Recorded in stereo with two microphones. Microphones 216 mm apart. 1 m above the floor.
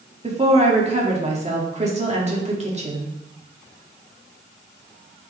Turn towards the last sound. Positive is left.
turn(degrees=-30)  # may be behind; listen again after turning